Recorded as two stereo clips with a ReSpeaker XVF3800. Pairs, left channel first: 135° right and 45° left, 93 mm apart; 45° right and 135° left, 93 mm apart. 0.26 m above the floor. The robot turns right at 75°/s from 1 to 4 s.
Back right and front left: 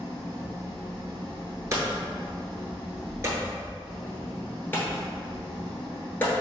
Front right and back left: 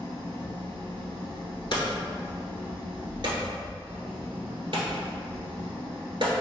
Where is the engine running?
15° right, 2.0 m; by 6.4 s 150° right, 2.0 m.